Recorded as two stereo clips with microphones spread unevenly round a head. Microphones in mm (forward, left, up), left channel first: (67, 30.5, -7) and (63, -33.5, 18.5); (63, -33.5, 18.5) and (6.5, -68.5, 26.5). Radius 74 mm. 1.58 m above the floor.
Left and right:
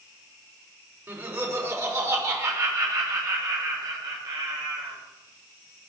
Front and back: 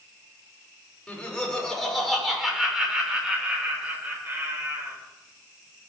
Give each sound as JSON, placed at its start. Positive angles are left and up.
{"t": 1.1, "sound": "laughter", "azimuth_deg": -45, "distance_m": 5.5}